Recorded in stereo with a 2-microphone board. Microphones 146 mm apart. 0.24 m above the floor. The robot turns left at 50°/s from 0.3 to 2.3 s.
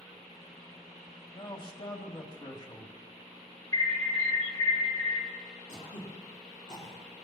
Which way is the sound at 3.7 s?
25° left (ahead or behind).